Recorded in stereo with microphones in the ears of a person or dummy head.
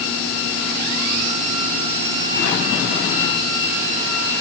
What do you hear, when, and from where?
Only background noise.